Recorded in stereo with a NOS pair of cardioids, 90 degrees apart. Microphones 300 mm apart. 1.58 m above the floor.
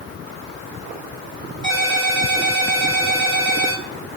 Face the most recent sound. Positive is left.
turn(degrees=-15)